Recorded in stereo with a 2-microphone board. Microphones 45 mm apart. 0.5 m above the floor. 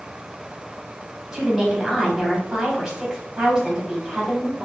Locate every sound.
1.3 s a woman speaking: 5° right (ahead or behind), 1.9 m